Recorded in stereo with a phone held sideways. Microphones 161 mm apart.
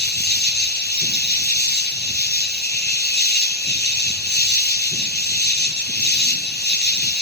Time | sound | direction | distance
0.0 | an insect | 85° left | 1.1 m